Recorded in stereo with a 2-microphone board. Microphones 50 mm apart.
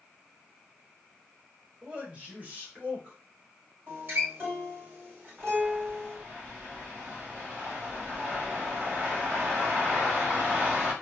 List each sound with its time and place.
1.8 s a man speaking: 25° right (ahead or behind), 1.0 m; by 3.2 s 35° right (ahead or behind), 1.4 m
3.9 s a guitar: 45° right (ahead or behind), 2.0 m
5.4 s a bird: 35° right (ahead or behind), 1.5 m